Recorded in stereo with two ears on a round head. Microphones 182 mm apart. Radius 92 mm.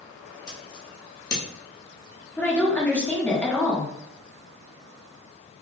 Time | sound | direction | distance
0.5 | scissors | 20° left (ahead or behind) | 1.1 m
2.4 | a woman speaking | 10° left (ahead or behind) | 1.0 m